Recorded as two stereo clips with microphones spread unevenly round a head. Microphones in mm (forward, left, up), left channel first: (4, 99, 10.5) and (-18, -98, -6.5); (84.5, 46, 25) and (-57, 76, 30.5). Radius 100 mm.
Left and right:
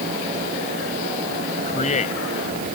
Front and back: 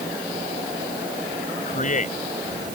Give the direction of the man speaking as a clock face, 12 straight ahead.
11 o'clock.